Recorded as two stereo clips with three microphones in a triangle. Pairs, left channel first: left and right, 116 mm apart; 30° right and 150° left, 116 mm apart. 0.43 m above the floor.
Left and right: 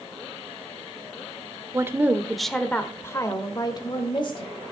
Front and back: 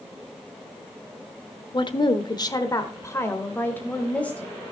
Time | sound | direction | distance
1.7 | a woman speaking | 40° right | 1.0 m